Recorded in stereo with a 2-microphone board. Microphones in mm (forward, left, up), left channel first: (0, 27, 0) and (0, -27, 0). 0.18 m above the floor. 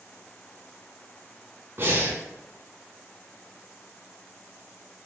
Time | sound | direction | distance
1.8 | breathing | 40° right (ahead or behind) | 0.8 m